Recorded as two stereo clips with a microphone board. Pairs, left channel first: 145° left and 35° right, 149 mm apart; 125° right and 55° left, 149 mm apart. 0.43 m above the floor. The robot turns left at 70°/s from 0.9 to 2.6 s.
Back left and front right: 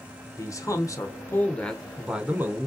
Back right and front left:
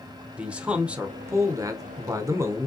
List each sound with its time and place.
0.4 s a man speaking: 125° left, 0.8 m; by 2.7 s 10° left, 0.8 m